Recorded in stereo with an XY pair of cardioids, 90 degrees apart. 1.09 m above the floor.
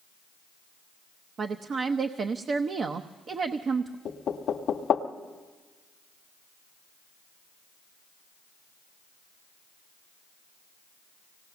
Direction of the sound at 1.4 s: 55° right.